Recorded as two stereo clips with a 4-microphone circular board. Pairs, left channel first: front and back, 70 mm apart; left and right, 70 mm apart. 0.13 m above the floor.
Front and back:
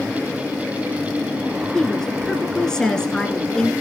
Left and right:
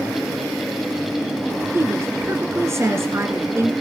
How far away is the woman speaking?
About 1.5 m.